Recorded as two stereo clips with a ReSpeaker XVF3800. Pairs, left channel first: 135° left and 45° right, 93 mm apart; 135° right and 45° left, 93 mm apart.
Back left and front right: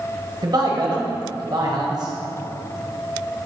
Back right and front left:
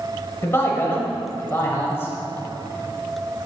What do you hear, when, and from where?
0.4 s a man speaking: 75° right, 1.5 m